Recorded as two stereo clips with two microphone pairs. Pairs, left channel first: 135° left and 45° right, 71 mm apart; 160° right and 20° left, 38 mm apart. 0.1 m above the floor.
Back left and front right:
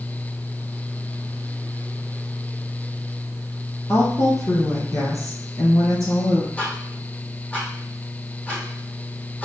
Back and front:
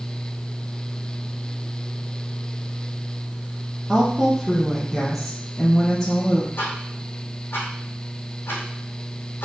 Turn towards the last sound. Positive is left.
turn(degrees=-155)